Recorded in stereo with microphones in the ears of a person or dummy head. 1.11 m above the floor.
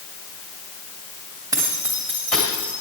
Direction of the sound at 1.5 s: 10° right (ahead or behind).